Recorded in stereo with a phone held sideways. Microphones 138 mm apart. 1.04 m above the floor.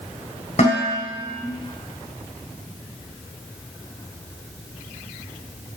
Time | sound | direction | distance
0.6 | dishes clattering | 55° left (ahead or behind) | 4 m